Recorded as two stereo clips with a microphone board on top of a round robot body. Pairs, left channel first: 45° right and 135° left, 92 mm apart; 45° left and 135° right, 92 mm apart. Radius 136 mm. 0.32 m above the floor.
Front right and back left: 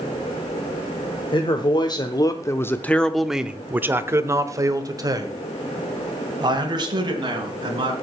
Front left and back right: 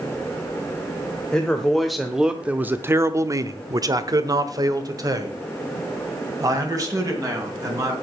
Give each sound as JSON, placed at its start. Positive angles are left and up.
{"t": 1.3, "sound": "a man speaking", "azimuth_deg": -35, "distance_m": 1.4}